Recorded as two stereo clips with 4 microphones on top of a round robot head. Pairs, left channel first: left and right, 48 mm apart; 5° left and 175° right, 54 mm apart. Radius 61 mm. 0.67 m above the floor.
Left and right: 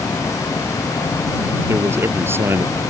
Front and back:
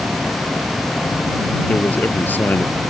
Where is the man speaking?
55° right.